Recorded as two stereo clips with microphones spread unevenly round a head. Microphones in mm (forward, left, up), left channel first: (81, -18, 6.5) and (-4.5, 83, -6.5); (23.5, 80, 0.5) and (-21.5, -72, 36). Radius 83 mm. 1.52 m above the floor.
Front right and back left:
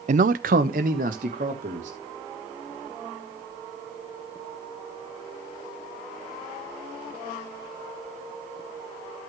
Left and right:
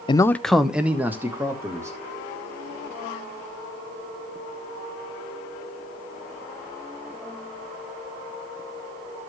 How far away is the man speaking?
About 0.5 m.